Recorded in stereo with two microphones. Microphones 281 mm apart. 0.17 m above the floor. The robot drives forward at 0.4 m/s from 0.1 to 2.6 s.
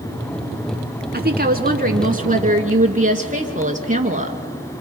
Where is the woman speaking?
35° right (ahead or behind), 1.4 m; by 4.4 s 30° right (ahead or behind), 1.8 m.